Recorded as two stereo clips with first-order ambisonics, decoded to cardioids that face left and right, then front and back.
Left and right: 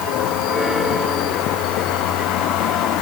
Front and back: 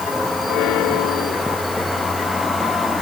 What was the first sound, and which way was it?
Only background noise.